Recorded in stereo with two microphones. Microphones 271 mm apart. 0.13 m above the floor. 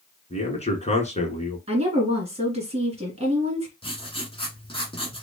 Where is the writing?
20° left (ahead or behind), 1.3 m.